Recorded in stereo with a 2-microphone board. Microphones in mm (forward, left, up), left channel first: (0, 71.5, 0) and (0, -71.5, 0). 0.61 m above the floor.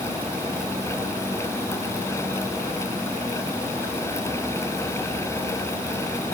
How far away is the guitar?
No guitar in this recording.